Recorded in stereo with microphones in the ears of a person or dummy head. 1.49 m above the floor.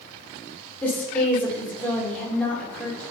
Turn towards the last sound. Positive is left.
turn(degrees=10)  # may be behind; listen again after turning